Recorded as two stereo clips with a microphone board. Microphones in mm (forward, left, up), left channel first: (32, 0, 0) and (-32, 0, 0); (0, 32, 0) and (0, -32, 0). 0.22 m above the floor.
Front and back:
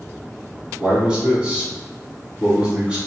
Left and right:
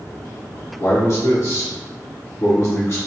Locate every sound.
0.8 s a man speaking: 110° left, 1.9 m